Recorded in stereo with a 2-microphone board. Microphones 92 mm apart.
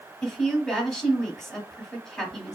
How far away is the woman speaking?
About 1.6 m.